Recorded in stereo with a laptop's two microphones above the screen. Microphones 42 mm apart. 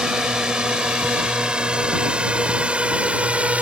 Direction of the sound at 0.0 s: 20° right (ahead or behind).